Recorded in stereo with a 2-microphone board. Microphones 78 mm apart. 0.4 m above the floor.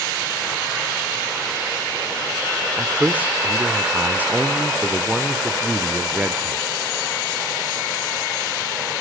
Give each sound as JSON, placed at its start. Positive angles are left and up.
{"t": 2.8, "sound": "a man speaking", "side_deg": -20, "distance_m": 1.0}